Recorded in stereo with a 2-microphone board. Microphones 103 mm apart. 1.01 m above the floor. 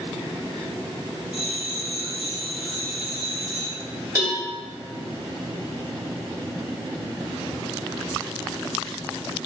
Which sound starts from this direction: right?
A cowbell, at 4.2 s.